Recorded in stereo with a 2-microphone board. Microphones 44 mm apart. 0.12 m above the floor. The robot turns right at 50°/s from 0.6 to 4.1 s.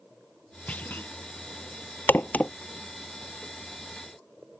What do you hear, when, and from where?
0.7 s a clunk: 30° left (ahead or behind); by 1.1 s 50° left (ahead or behind)
2.1 s a crack: 55° left (ahead or behind); by 2.5 s 35° left (ahead or behind)